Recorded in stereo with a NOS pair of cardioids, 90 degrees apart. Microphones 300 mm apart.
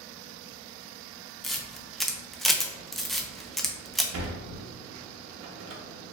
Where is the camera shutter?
Straight ahead, 0.6 m.